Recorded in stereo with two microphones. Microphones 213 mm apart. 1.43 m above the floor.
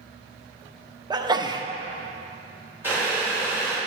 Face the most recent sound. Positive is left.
turn(degrees=-10)  # may be behind; listen again after turning